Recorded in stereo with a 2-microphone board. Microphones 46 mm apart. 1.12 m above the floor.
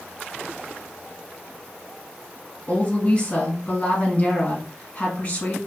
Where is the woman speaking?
25° left (ahead or behind), 1.5 m.